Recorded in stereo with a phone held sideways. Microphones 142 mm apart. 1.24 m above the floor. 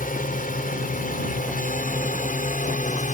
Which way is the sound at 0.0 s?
80° left.